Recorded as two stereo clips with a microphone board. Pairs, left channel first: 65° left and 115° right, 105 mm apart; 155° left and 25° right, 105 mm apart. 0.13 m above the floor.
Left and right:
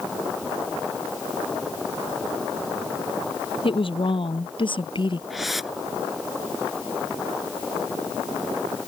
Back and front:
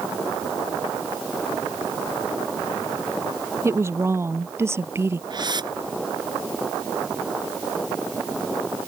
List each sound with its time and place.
3.6 s a woman speaking: 40° left
5.3 s a whoosh: 25° right